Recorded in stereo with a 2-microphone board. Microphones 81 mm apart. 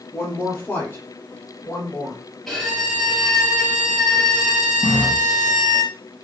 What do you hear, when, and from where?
0.1 s a woman speaking: 25° left (ahead or behind), 4.5 m
2.5 s a violin: centre (ahead or behind), 4 m
4.8 s a running tap: 25° left (ahead or behind), 4 m